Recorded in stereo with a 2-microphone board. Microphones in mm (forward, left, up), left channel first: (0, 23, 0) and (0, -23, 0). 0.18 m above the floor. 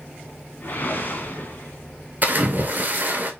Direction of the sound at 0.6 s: 45° left (ahead or behind).